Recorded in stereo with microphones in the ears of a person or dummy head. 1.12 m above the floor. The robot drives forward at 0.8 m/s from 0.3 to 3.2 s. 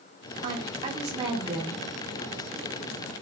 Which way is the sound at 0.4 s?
45° right (ahead or behind).